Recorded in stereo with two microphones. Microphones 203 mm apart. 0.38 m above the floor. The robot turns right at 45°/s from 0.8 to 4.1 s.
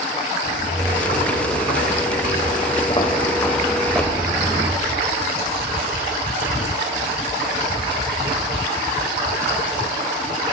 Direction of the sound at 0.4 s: 60° left (ahead or behind).